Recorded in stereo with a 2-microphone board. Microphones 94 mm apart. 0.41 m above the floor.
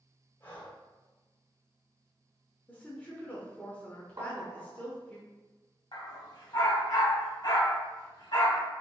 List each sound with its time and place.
0.4 s breathing: 25° left (ahead or behind), 1.4 m
2.7 s a woman speaking: 20° left (ahead or behind), 0.8 m
4.2 s tapping: 50° right (ahead or behind), 0.9 m
5.9 s a dog barking: 55° left (ahead or behind), 1.1 m